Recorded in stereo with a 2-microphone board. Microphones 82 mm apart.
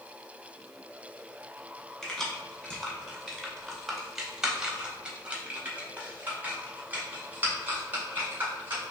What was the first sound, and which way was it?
Keys jangling, 10° left (ahead or behind).